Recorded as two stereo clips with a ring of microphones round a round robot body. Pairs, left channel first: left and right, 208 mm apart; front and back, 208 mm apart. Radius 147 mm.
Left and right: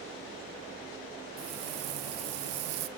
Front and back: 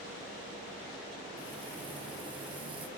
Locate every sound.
1.4 s frying: 105° right, 1.0 m